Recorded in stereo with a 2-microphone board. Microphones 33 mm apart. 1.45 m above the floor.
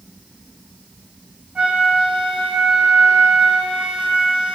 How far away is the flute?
About 1.6 m.